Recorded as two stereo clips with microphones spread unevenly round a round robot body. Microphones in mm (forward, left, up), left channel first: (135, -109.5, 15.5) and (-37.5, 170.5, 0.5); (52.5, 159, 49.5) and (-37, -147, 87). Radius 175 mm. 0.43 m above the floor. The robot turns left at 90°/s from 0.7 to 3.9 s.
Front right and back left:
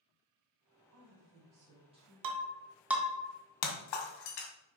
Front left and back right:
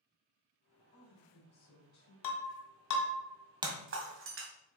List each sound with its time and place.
0.9 s a woman speaking: 145° left, 3.5 m; by 2.1 s 30° left, 3.5 m
2.2 s breaking glass: 95° left, 1.7 m; by 4.5 s 55° right, 1.7 m